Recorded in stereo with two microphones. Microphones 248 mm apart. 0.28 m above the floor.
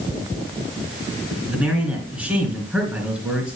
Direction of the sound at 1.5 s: 5° right (ahead or behind).